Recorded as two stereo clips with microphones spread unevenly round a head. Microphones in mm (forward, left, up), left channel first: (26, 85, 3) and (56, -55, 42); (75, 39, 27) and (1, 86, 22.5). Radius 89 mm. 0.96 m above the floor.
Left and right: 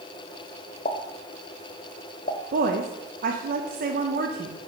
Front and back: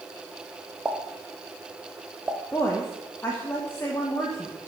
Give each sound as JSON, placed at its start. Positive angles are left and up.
{"t": 0.8, "sound": "a pop", "azimuth_deg": 80, "distance_m": 0.7}
{"t": 2.5, "sound": "a woman speaking", "azimuth_deg": -95, "distance_m": 0.7}